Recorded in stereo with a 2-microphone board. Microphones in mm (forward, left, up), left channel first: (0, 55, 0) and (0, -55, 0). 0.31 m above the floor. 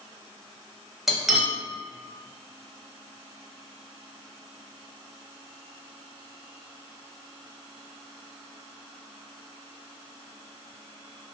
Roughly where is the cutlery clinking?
Centre.